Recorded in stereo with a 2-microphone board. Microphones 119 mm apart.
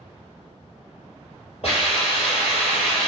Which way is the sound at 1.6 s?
55° left (ahead or behind).